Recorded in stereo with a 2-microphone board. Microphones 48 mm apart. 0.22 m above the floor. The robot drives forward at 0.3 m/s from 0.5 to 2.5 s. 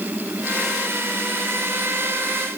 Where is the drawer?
I don't hear a drawer.